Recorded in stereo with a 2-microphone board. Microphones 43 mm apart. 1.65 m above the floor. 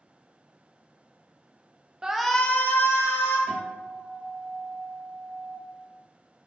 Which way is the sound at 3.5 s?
20° left (ahead or behind).